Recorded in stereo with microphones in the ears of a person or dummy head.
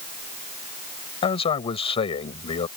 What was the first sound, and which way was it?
A man speaking, 25° left (ahead or behind).